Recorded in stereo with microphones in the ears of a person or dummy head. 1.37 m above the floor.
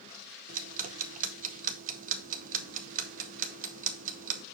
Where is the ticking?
50° right (ahead or behind), 0.7 m.